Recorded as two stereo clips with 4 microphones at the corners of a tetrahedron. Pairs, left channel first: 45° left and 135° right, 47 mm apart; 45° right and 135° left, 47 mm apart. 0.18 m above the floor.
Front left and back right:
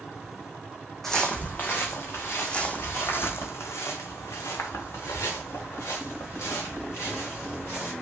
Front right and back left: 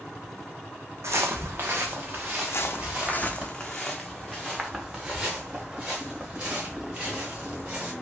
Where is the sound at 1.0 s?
130° left, 0.6 m; by 3.5 s 75° left, 2 m.